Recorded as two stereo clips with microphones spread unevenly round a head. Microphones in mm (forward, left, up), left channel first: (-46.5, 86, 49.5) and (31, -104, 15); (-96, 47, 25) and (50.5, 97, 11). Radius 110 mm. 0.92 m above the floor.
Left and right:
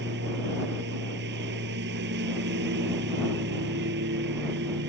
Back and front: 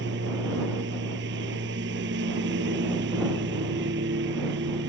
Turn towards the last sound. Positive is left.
turn(degrees=-25)